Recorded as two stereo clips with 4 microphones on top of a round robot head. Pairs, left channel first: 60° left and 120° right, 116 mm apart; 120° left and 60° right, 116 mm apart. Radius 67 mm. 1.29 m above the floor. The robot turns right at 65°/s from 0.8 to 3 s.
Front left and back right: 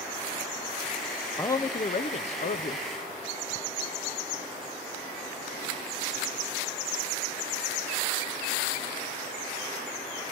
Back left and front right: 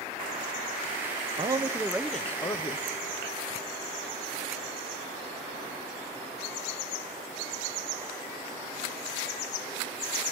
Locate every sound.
1.4 s a man speaking: 10° right, 0.5 m; by 2.9 s 85° left, 0.5 m